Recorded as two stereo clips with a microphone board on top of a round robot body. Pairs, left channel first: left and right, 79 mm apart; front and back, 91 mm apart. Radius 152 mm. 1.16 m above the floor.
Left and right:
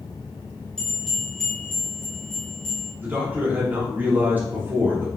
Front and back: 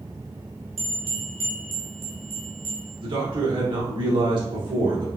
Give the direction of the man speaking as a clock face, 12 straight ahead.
5 o'clock.